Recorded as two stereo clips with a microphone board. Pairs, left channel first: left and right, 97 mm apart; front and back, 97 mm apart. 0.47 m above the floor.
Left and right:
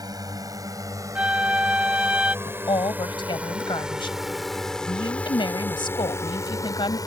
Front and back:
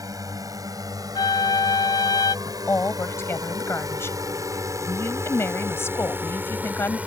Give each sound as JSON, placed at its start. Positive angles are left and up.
{"t": 0.0, "sound": "a drone", "azimuth_deg": -135}
{"t": 1.1, "sound": "a flute", "azimuth_deg": -15}
{"t": 2.5, "sound": "a woman speaking", "azimuth_deg": 60}